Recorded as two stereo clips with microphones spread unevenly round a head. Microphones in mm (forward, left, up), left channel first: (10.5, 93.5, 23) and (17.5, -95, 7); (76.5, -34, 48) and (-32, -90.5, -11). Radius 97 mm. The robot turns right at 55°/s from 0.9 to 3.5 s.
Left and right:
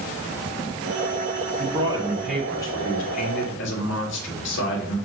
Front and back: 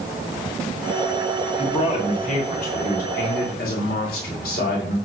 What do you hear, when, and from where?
1.6 s a man speaking: 40° right, 2.5 m; by 5.0 s 65° left, 2.5 m